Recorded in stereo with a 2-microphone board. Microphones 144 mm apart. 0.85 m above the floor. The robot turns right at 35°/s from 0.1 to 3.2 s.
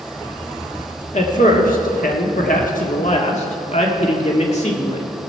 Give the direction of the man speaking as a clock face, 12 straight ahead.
10 o'clock.